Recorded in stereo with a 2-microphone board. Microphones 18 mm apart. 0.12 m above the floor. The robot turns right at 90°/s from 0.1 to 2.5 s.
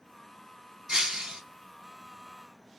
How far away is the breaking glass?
About 1.1 m.